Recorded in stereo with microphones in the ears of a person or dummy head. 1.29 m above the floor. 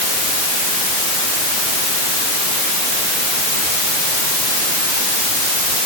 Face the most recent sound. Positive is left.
No sound to turn to.